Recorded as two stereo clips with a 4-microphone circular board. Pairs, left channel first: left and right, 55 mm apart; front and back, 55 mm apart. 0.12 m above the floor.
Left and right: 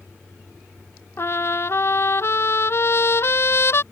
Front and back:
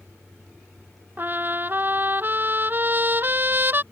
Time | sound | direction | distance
1.2 | a trumpet | 130° left | ?